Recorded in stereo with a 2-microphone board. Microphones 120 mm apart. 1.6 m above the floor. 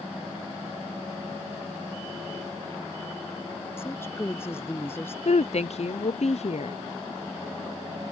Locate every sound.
3.8 s a woman speaking: 20° left (ahead or behind)
5.2 s a woman speaking: 60° left (ahead or behind)